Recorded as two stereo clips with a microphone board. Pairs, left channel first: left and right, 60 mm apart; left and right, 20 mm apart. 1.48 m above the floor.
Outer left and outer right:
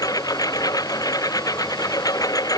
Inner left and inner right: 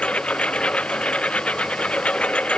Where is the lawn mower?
85° left.